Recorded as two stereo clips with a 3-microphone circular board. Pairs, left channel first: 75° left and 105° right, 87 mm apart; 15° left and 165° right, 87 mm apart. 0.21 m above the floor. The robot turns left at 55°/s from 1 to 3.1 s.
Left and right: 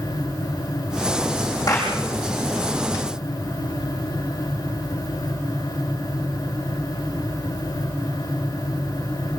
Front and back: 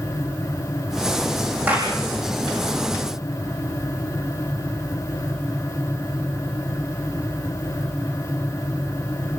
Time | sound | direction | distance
1.7 | a clap | 125° left | 8 m